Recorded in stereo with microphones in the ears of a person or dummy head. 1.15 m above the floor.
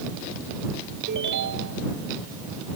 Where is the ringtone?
60° right (ahead or behind).